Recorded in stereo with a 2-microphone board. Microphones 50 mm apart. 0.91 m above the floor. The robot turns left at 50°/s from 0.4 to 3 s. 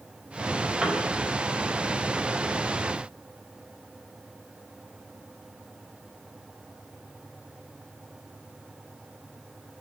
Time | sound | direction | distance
0.8 | a piano | 10° right (ahead or behind) | 3 m